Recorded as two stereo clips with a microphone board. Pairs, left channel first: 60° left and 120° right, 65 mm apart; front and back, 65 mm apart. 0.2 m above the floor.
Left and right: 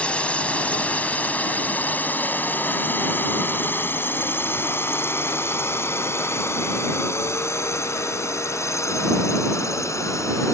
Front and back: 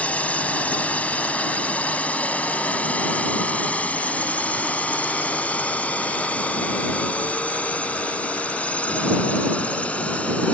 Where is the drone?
25° left; by 10.5 s 65° left.